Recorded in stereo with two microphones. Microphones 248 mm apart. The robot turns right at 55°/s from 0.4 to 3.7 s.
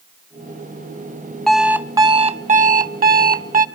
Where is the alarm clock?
175° left, 0.5 m; by 3.6 s 65° right, 0.5 m.